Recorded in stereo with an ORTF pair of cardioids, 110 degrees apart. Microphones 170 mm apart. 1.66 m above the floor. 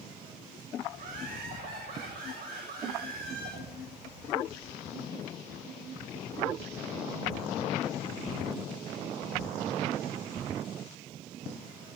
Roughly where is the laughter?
Ahead right.